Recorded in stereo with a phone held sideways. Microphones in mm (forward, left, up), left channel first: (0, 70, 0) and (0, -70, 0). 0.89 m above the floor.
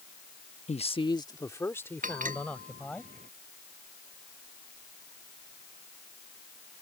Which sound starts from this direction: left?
A man speaking, at 0.7 s.